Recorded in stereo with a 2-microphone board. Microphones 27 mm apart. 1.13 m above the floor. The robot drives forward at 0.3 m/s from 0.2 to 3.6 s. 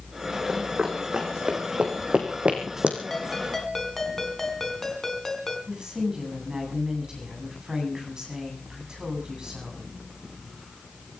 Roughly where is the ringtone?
Centre.